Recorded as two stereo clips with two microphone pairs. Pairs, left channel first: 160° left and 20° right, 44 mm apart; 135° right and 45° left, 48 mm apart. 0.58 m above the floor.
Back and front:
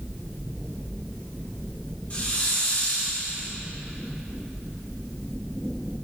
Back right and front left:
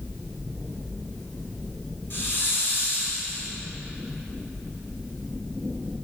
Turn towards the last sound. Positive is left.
turn(degrees=-155)